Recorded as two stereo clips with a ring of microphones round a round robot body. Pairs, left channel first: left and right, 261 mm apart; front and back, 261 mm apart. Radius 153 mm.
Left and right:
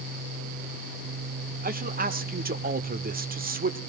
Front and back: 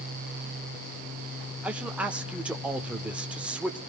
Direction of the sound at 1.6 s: 100° right.